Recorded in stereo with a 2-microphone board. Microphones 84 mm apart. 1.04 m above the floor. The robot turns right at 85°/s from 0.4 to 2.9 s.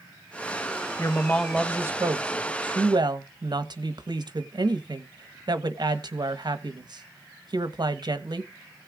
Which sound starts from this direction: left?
A woman speaking, at 1.0 s.